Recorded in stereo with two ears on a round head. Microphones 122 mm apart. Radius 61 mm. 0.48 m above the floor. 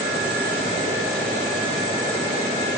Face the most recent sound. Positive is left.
No sound to turn to.